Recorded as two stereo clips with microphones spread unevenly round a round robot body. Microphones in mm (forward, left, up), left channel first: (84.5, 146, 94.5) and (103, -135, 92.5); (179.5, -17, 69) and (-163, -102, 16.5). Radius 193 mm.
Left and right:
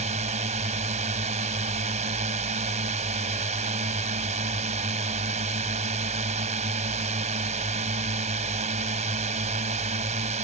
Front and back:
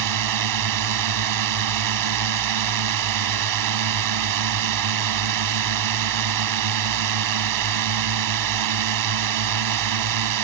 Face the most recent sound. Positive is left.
turn(degrees=-155)